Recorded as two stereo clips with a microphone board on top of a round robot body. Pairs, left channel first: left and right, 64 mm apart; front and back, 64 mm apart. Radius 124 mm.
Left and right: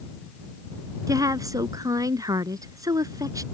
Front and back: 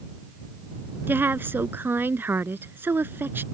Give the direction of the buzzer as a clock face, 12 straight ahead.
No buzzer in this recording.